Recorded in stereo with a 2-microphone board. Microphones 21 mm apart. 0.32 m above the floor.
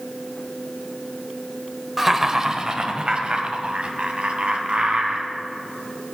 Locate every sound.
2.0 s laughter: 10° right (ahead or behind), 1.0 m; by 5.3 s 70° right (ahead or behind), 3 m